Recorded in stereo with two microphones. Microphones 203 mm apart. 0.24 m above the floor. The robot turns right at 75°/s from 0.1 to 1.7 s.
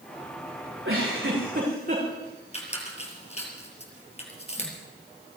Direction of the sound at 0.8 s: 110° right.